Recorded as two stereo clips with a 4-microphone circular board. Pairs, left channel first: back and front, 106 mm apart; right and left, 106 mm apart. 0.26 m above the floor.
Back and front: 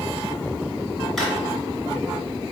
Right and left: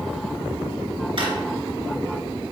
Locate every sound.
1.2 s a drawer: 90° left, 1.4 m